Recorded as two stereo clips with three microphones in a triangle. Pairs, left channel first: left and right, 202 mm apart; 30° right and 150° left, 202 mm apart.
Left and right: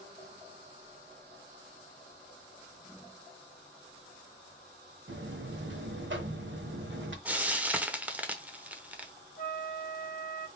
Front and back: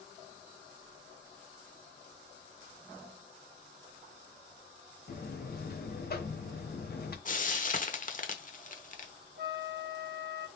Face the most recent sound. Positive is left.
turn(degrees=125)